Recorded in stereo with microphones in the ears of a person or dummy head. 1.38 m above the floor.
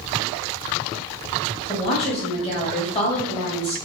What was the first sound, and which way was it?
A woman speaking, 30° left (ahead or behind).